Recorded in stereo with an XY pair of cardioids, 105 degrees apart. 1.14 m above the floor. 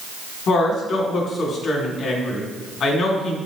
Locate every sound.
0.5 s a woman speaking: 60° left, 3 m